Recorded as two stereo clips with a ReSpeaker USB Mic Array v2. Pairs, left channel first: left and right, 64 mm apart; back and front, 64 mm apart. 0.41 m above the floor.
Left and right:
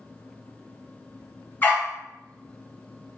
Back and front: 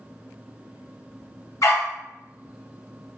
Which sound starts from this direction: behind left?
A dog barking, at 1.6 s.